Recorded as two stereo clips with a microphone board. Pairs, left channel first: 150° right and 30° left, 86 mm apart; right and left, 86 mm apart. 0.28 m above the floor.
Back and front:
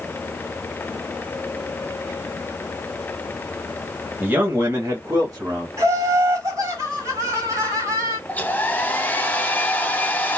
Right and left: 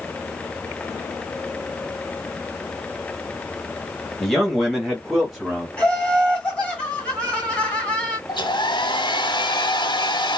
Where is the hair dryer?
80° right, 0.7 m.